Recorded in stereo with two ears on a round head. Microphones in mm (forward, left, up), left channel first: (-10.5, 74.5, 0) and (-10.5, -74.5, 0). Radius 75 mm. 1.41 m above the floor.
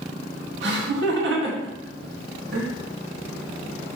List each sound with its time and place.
0.6 s laughter: 80° right, 2.5 m